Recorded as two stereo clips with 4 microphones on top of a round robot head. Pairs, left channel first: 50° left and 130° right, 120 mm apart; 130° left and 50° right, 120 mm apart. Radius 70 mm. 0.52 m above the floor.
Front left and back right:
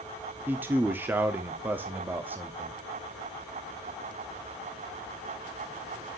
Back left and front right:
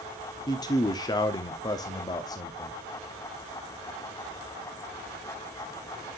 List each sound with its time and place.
0.5 s a man speaking: 165° left, 0.9 m